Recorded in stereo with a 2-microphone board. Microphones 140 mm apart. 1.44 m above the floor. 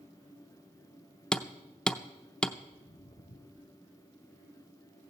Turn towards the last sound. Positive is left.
turn(degrees=65)  # may be behind; listen again after turning